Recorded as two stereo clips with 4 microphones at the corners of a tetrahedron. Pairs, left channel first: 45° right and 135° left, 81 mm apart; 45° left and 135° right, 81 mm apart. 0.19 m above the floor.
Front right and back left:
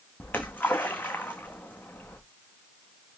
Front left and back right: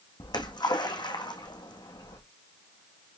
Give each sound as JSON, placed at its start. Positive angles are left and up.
{"t": 0.2, "sound": "a splash", "azimuth_deg": 25, "distance_m": 2.0}